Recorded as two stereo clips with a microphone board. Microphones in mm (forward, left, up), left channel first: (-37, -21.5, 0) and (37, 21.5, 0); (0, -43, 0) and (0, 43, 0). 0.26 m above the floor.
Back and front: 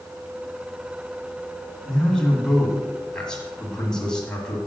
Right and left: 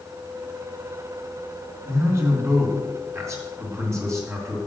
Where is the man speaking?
130° left, 2 m.